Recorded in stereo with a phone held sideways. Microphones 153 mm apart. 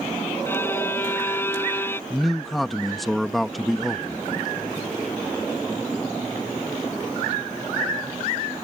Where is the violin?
15° left (ahead or behind).